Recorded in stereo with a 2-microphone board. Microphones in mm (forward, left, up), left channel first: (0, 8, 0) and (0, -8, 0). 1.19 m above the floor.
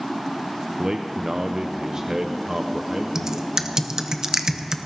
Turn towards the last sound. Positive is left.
turn(degrees=-30)  # may be behind; listen again after turning